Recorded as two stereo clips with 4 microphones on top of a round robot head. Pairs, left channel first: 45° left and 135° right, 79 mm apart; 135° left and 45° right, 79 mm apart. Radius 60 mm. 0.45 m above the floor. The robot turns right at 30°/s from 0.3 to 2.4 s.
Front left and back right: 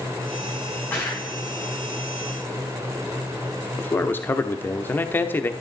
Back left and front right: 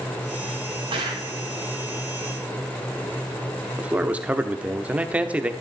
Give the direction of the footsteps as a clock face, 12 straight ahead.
1 o'clock.